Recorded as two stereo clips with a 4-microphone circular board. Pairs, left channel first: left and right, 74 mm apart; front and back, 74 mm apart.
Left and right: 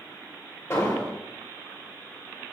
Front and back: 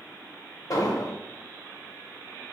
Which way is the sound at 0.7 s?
35° left.